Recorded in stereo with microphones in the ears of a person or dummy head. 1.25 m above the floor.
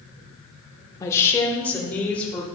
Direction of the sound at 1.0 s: 20° left (ahead or behind).